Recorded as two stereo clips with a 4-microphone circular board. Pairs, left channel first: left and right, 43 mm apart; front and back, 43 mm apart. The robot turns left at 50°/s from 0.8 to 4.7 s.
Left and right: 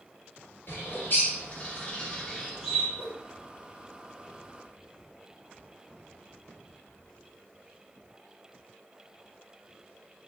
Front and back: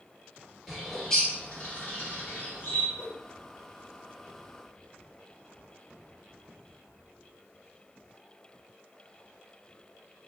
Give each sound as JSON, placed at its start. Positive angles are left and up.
{"t": 0.7, "sound": "a bird", "azimuth_deg": 80, "distance_m": 2.0}
{"t": 3.0, "sound": "a whoosh", "azimuth_deg": -100, "distance_m": 2.5}